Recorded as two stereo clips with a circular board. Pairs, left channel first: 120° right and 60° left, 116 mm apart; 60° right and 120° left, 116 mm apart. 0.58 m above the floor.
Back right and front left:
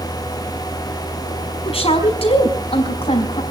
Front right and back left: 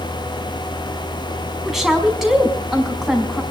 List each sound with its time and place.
1.6 s a woman speaking: 155° right, 5 m